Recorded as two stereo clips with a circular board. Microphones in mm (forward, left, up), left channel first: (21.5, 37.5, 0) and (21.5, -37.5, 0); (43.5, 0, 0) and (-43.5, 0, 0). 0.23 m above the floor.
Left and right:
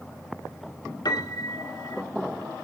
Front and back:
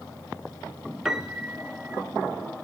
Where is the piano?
95° left, 1.1 m.